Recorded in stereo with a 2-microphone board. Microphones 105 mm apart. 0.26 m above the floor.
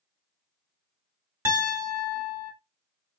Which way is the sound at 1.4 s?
25° right (ahead or behind).